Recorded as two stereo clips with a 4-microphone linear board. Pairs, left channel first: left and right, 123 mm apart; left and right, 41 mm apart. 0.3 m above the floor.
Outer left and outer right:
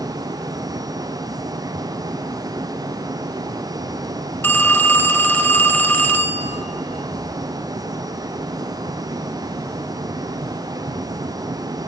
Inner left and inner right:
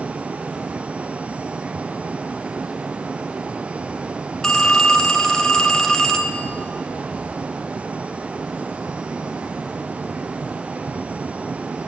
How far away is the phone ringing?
About 0.6 m.